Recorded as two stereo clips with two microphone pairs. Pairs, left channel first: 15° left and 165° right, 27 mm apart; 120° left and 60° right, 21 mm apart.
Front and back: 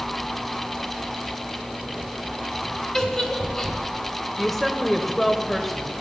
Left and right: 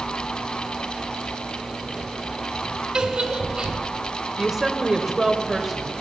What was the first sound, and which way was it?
A giggle, 50° right.